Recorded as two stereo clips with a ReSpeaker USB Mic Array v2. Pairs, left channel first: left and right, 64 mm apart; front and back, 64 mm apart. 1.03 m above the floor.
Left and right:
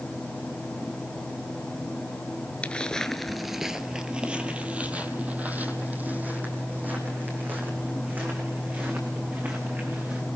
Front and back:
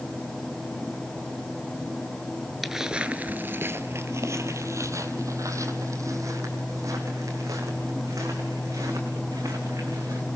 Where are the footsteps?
95° left, 1.0 m; by 10.2 s 150° right, 6 m.